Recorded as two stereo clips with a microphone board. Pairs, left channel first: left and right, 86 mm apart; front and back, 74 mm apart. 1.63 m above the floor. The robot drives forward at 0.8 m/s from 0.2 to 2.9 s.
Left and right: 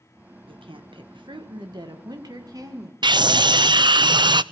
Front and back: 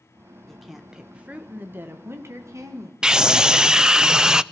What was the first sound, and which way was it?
A woman speaking, 85° right.